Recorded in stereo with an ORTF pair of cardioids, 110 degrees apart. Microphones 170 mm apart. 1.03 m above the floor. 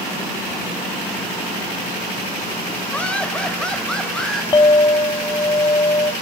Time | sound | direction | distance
2.9 | laughter | 5° left | 4.5 m
4.5 | a clink | 25° left | 1.1 m